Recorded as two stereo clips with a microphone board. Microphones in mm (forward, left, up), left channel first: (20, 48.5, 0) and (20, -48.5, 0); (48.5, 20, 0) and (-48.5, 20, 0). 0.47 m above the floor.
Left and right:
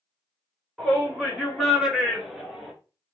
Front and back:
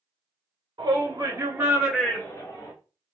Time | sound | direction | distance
0.8 | a shout | 170° right | 1.9 m